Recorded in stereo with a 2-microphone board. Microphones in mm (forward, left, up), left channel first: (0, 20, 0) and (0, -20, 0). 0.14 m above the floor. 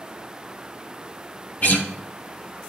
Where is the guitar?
45° left (ahead or behind), 1.5 m.